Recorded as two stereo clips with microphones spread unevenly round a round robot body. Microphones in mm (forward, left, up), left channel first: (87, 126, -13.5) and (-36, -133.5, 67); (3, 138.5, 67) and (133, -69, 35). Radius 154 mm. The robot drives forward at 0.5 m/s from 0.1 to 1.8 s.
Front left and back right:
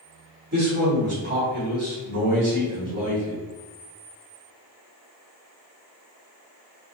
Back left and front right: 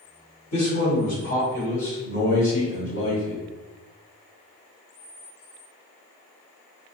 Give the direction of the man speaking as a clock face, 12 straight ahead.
6 o'clock.